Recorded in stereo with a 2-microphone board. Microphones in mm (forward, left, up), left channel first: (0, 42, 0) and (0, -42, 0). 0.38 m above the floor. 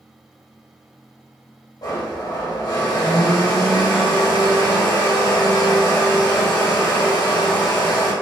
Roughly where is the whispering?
I don't hear whispering.